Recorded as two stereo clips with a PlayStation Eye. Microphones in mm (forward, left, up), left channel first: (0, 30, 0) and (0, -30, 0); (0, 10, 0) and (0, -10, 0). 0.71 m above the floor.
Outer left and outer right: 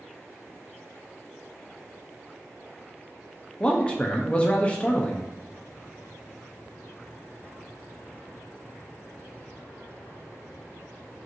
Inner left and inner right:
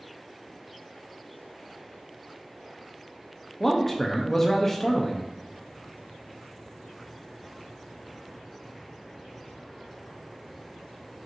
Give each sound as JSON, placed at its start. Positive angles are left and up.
{"t": 3.6, "sound": "a man speaking", "side_deg": 20, "distance_m": 0.5}